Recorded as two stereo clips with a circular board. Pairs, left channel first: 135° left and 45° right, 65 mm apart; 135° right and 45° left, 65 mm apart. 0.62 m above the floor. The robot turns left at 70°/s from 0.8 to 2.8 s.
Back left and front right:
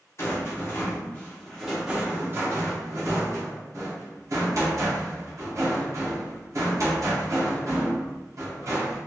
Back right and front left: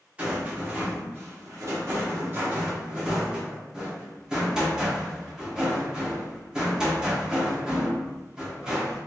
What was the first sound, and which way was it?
A rattle, 105° left.